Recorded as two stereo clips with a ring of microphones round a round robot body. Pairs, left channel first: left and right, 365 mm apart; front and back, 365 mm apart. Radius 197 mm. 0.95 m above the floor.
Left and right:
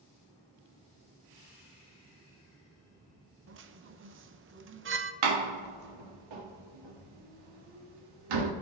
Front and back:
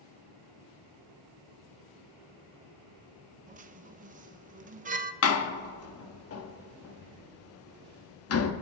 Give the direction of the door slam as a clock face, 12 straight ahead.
2 o'clock.